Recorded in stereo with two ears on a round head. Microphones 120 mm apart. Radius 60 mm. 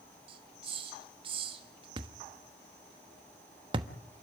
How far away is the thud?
About 1.2 m.